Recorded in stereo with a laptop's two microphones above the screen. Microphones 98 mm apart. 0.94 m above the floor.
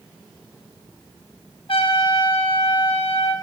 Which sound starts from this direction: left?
A trumpet, at 1.7 s.